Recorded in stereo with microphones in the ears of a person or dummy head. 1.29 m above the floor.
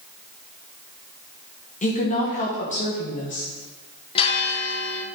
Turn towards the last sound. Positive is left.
turn(degrees=35)  # may be behind; listen again after turning